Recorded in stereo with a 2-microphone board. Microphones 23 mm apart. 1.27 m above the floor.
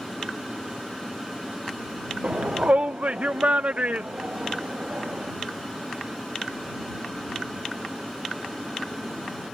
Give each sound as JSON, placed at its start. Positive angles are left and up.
{"t": 2.2, "sound": "a shout", "side_deg": -60}